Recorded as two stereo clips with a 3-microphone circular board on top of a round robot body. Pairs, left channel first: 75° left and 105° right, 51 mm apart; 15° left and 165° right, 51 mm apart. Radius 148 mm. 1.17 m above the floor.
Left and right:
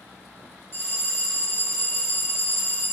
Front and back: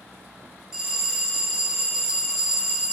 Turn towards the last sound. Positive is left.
turn(degrees=115)